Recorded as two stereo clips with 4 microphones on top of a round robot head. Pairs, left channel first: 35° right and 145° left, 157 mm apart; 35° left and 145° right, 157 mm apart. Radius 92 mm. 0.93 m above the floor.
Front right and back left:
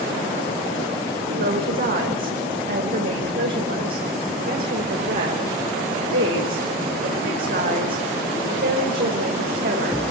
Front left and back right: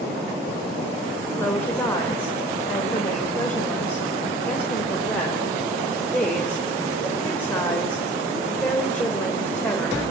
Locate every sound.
1.3 s a woman speaking: 115° left, 4.5 m